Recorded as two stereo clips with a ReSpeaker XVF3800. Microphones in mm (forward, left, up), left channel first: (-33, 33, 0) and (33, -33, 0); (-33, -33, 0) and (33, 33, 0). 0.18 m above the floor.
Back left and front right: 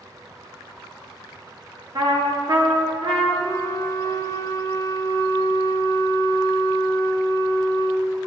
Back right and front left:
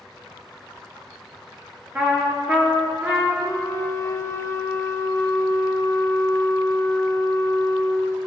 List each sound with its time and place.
1.9 s a trumpet: 20° right, 2.5 m
3.4 s a flute: 175° left, 1.0 m